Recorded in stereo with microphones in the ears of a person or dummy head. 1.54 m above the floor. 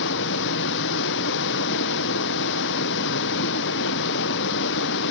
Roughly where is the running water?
Left.